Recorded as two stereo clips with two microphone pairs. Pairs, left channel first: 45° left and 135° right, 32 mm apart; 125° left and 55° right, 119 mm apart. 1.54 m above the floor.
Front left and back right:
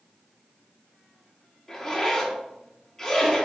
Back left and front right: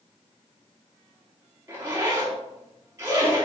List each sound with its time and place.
1.7 s a zipper: 10° right, 1.2 m